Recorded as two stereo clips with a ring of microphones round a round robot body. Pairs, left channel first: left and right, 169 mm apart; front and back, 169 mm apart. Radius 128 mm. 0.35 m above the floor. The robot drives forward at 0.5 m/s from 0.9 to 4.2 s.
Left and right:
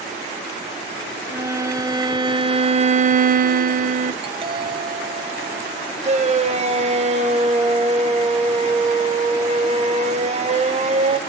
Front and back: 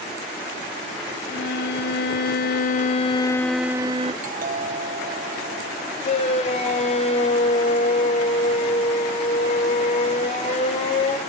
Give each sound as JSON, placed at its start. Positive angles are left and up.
{"t": 1.3, "sound": "a violin", "azimuth_deg": -15, "distance_m": 1.2}
{"t": 4.2, "sound": "a doorbell", "azimuth_deg": -145, "distance_m": 3.0}
{"t": 6.0, "sound": "a shout", "azimuth_deg": -50, "distance_m": 2.0}